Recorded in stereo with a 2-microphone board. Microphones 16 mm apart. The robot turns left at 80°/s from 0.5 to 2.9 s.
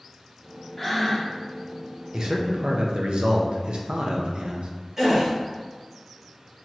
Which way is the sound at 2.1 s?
45° right.